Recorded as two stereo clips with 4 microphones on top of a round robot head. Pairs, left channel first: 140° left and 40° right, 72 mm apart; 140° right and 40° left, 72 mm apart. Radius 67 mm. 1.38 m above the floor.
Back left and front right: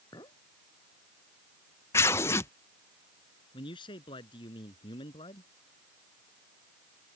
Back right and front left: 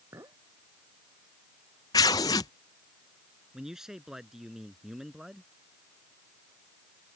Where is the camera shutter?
I don't hear a camera shutter.